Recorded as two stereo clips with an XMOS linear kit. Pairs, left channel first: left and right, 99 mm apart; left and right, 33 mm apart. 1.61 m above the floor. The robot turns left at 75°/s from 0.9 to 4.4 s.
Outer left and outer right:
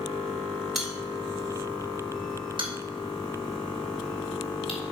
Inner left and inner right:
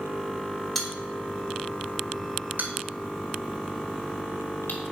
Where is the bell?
Centre (ahead or behind), 3 m; by 4.8 s 75° left (ahead or behind), 3 m.